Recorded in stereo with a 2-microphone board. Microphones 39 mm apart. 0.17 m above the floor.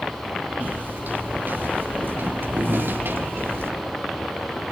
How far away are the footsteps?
About 6.5 m.